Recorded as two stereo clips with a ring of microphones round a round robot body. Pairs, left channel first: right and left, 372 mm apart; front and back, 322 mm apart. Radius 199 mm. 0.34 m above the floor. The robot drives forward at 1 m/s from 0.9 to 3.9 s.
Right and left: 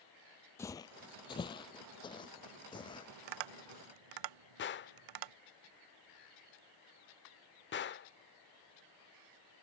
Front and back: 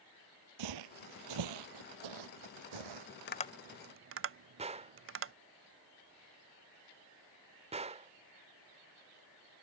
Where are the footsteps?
175° right; by 3.1 s 170° right.